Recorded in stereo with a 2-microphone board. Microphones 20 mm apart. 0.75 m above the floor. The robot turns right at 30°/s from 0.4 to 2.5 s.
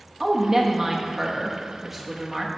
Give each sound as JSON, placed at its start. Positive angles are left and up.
{"t": 0.2, "sound": "a woman speaking", "azimuth_deg": -45, "distance_m": 1.0}